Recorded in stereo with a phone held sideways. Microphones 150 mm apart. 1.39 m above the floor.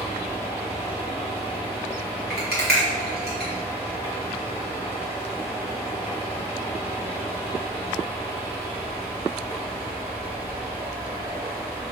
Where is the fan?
40° right (ahead or behind), 1.4 m.